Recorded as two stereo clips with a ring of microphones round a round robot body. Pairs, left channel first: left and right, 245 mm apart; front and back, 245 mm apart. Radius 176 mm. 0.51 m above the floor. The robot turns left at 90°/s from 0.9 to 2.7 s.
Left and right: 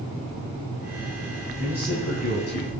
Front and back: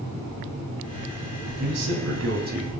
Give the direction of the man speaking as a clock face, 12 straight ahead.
5 o'clock.